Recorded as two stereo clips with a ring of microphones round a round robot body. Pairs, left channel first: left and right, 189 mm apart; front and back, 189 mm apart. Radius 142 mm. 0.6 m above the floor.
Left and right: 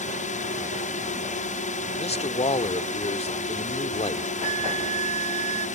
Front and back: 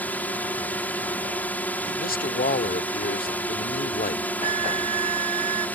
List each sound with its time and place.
0.0 s a drone: 75° left
1.9 s a man speaking: 35° left
4.4 s a flute: 135° right